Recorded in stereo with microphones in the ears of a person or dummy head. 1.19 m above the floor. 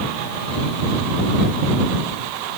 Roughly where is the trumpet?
No trumpet in this recording.